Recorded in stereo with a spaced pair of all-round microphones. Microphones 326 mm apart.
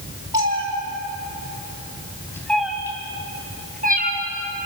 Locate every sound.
0.3 s a cat meowing: 60° left (ahead or behind), 3.5 m; by 4.2 s 30° right (ahead or behind), 4.5 m